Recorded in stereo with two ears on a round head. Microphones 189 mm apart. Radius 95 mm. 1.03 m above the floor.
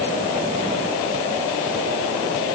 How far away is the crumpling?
No crumpling in this recording.